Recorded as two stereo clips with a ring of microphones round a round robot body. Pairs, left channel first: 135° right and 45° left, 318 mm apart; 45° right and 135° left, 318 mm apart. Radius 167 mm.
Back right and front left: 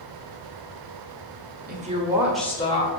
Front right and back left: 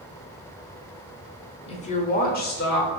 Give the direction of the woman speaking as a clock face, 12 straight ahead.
12 o'clock.